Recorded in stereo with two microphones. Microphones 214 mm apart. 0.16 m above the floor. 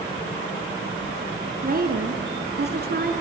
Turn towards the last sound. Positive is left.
turn(degrees=-45)  # may be behind; listen again after turning